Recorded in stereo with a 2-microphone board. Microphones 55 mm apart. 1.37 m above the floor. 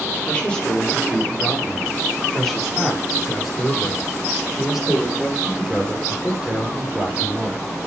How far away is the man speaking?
About 5 m.